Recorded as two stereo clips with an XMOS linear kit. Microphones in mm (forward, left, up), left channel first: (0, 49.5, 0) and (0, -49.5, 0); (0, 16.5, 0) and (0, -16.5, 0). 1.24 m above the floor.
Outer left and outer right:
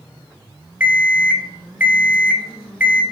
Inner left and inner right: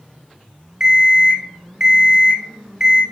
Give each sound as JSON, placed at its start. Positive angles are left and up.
{"t": 0.8, "sound": "an alarm clock", "side_deg": -15, "distance_m": 0.7}